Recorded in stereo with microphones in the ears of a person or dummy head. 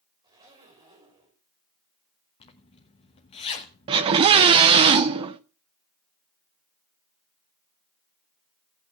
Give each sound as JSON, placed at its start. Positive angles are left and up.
{"t": 0.2, "sound": "a zipper", "side_deg": -25, "distance_m": 4.5}
{"t": 2.4, "sound": "a zipper", "side_deg": 30, "distance_m": 1.1}
{"t": 3.9, "sound": "a scream", "side_deg": -25, "distance_m": 0.6}